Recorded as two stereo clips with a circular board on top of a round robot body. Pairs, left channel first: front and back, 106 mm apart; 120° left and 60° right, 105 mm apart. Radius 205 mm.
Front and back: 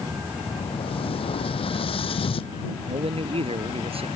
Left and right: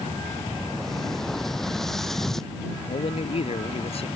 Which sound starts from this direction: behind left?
A man speaking, at 2.9 s.